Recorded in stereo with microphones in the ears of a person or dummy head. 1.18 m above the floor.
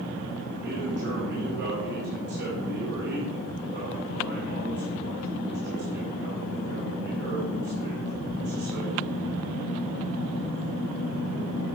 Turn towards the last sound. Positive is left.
turn(degrees=-60)  # may be behind; listen again after turning